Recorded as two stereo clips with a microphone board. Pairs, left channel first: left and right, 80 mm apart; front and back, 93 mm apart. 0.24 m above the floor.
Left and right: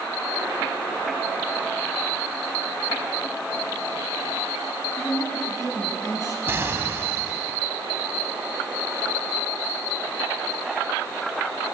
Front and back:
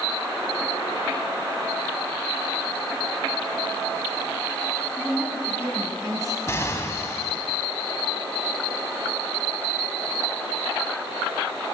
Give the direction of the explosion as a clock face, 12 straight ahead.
2 o'clock.